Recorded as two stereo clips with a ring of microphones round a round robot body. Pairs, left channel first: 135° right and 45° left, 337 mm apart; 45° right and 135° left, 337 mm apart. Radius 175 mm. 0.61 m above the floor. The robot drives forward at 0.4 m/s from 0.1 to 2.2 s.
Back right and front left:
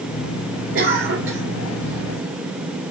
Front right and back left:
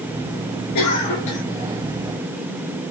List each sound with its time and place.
0.8 s a cough: 10° right, 3.5 m; by 1.4 s 15° right, 3 m